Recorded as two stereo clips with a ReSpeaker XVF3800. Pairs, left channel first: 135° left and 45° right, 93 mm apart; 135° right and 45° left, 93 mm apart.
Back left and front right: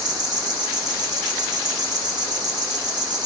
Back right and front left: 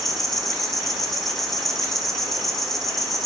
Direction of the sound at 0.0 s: 50° right.